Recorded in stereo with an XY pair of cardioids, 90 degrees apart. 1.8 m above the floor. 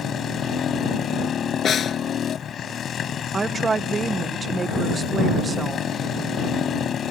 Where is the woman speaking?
40° right.